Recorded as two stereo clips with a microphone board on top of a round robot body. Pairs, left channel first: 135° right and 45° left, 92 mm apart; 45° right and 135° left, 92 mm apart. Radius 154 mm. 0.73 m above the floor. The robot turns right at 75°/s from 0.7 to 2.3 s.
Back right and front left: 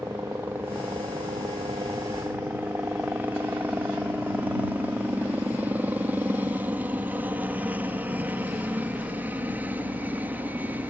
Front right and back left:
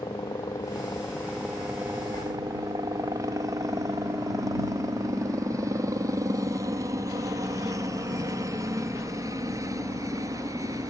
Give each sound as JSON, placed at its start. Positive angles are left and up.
{"t": 0.0, "sound": "a helicopter", "azimuth_deg": -15}